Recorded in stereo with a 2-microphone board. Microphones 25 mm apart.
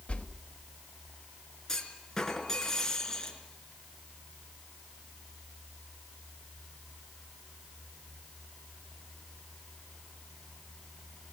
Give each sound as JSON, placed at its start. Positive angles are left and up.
{"t": 0.1, "sound": "a whoosh", "side_deg": 60, "distance_m": 1.1}
{"t": 1.7, "sound": "a clunk", "side_deg": 20, "distance_m": 4.0}